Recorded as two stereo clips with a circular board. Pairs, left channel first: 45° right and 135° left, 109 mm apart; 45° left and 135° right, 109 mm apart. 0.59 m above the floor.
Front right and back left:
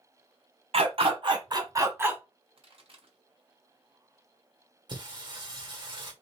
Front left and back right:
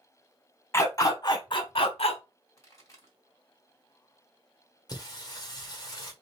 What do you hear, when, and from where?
0.7 s a dog barking: 110° left, 1.3 m; by 2.2 s 60° left, 1.2 m
2.6 s a pop: 100° left, 3 m
4.9 s singing: 95° left, 1.6 m